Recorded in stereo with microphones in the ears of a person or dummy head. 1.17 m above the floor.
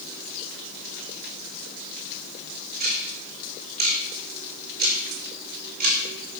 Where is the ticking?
50° right (ahead or behind), 3.5 m.